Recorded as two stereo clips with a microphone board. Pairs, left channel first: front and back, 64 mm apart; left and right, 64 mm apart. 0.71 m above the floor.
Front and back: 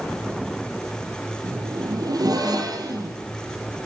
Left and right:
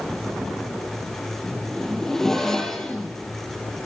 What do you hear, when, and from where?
1.4 s a zipper: 175° left, 5.5 m